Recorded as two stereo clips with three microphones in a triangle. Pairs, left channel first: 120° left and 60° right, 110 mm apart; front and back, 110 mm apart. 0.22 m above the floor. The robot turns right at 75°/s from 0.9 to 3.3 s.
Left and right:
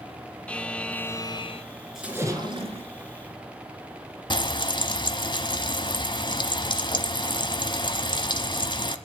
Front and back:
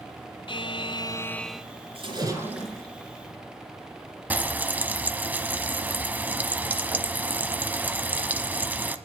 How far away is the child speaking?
No child speaking in this recording.